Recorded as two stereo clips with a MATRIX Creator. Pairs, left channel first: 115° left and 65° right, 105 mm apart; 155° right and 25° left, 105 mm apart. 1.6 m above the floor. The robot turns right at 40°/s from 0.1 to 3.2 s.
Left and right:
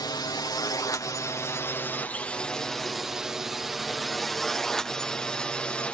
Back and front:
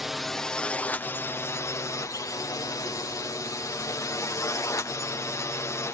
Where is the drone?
110° left; by 6.0 s straight behind.